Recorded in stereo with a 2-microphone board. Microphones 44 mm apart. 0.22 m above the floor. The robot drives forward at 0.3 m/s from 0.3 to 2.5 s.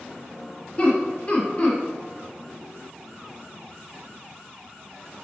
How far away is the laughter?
About 1.4 m.